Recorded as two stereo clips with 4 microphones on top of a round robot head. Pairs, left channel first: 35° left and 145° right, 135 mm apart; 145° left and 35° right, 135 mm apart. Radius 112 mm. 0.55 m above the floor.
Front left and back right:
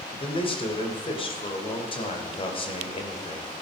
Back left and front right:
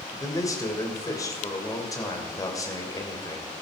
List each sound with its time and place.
0.2 s a man speaking: 80° left, 3 m